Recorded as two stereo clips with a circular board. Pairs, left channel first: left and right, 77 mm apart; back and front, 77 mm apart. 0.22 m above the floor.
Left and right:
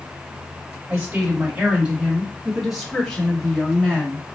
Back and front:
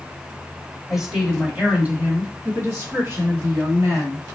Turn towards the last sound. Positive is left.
turn(degrees=15)